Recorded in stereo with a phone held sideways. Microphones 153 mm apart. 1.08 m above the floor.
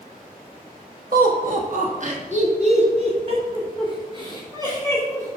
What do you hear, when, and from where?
1.1 s laughter: 70° right (ahead or behind), 1.9 m; by 5.4 s 25° right (ahead or behind), 4 m